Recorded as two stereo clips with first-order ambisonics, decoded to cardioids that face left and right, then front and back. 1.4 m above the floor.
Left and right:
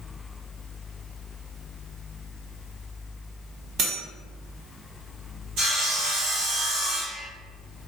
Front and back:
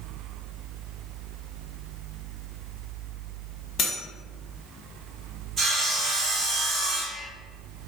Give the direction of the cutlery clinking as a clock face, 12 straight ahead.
2 o'clock.